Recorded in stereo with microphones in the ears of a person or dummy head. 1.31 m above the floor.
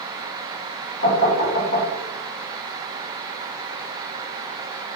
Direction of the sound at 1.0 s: 55° left (ahead or behind).